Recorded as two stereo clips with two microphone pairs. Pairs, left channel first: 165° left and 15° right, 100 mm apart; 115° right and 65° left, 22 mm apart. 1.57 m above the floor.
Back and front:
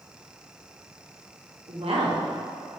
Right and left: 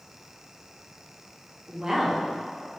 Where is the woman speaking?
10° left, 1.9 m.